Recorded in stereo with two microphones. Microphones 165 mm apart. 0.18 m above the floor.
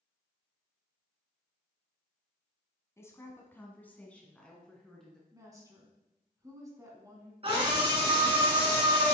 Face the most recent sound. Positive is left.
turn(degrees=-40)  # may be behind; listen again after turning